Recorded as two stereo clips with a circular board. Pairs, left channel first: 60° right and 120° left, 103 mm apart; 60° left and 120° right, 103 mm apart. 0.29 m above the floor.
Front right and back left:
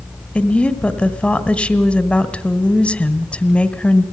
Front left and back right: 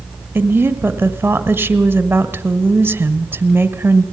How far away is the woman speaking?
About 1.4 m.